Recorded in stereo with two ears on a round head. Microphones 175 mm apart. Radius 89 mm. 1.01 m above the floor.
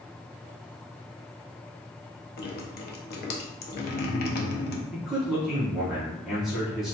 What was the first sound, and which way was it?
Dripping, 50° left (ahead or behind).